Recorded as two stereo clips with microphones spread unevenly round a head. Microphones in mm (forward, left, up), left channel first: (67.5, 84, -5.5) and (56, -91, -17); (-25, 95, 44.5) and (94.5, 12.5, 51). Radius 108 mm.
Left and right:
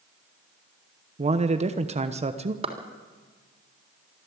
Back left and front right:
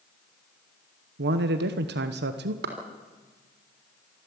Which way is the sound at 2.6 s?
35° right.